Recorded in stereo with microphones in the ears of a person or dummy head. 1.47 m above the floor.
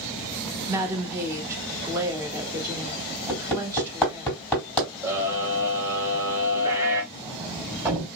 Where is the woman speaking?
15° right (ahead or behind), 1.3 m.